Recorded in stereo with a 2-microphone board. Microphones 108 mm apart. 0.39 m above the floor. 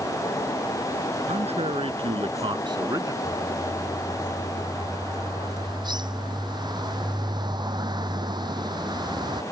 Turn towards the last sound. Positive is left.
turn(degrees=-40)  # may be behind; listen again after turning